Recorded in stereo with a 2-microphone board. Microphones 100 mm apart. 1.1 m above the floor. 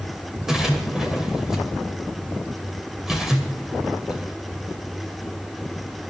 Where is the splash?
5° right (ahead or behind), 2.5 m.